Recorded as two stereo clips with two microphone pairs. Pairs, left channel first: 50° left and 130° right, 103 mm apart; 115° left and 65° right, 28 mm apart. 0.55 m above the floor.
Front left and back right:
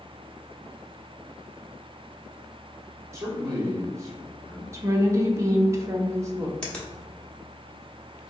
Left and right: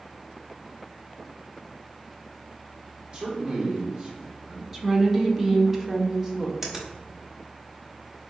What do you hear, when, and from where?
3.1 s a man speaking: 90° right, 1.3 m
4.7 s a woman speaking: 115° right, 0.7 m
6.6 s a finger snap: 25° right, 1.0 m